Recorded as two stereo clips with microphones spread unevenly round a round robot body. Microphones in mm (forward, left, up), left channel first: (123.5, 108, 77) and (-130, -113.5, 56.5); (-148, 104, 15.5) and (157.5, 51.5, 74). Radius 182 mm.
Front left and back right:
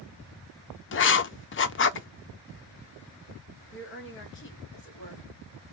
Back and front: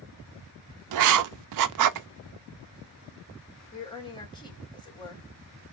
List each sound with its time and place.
0.9 s writing: 5° right, 0.6 m
3.7 s a woman speaking: 95° left, 2 m